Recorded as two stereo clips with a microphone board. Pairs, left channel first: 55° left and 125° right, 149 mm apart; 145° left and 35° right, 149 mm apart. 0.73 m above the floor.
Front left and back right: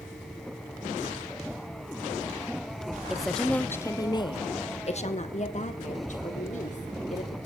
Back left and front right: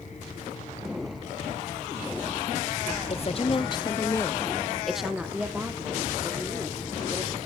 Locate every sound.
3.1 s a woman speaking: 150° left, 0.9 m; by 7.5 s 30° left, 2.5 m